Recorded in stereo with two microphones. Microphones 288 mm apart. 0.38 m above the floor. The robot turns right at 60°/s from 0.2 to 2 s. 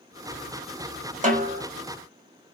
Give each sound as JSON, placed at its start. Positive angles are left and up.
{"t": 1.2, "sound": "a snare drum", "side_deg": -25, "distance_m": 1.3}